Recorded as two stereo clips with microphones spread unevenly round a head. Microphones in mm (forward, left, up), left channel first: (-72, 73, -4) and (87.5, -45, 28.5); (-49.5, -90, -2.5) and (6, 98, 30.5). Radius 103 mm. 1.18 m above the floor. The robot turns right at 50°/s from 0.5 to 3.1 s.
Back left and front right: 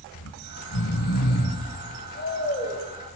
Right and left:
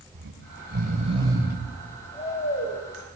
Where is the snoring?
105° left, 6.5 m; by 2.8 s 140° right, 6.5 m.